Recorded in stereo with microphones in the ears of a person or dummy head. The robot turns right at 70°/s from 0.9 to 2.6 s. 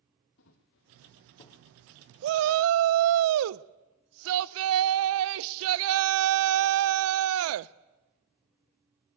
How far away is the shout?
About 0.6 m.